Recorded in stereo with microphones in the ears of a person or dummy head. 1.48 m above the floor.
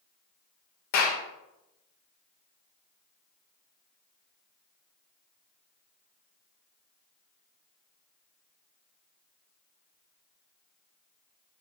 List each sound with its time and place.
0.9 s a clap: 45° left (ahead or behind), 0.7 m